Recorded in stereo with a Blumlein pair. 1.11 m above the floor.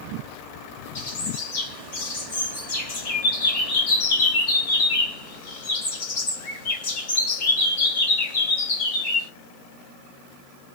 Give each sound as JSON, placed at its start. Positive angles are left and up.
{"t": 0.9, "sound": "a bird", "azimuth_deg": 55, "distance_m": 1.1}